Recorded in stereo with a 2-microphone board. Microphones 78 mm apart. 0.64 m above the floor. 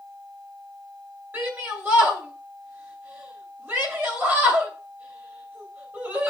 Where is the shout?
25° right (ahead or behind), 2.5 m.